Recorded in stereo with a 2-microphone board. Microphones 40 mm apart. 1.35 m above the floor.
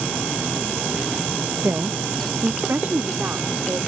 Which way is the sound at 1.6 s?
75° right (ahead or behind).